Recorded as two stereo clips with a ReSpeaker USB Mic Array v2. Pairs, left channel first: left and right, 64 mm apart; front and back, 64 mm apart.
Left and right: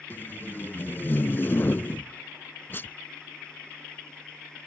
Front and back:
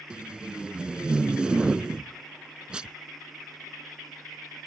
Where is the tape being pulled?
115° left.